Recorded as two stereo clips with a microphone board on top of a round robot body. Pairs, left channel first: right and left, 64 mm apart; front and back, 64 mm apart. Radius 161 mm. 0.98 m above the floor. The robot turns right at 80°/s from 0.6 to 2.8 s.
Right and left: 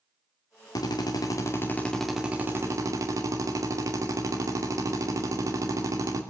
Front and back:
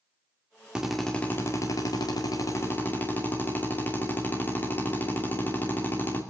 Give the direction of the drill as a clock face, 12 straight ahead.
4 o'clock.